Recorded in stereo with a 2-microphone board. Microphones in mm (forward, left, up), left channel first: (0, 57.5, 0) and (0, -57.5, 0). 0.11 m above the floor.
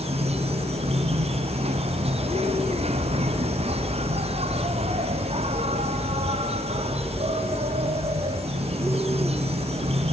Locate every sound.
0.0 s an insect: 65° right (ahead or behind), 1.4 m